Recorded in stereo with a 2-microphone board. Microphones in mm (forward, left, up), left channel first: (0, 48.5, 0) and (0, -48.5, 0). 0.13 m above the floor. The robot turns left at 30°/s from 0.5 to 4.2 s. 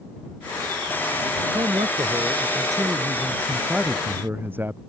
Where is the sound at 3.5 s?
Centre (ahead or behind); by 4.8 s 20° right (ahead or behind).